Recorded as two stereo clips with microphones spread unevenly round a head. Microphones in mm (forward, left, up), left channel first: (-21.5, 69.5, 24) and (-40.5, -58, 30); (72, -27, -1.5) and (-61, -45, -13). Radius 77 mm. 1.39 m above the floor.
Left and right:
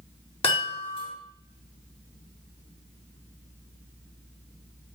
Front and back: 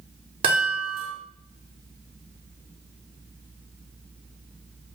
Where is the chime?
130° left, 5 m.